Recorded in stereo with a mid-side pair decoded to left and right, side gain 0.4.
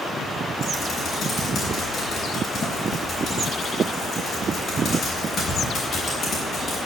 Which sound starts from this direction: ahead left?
Typing on a keyboard, at 0.6 s.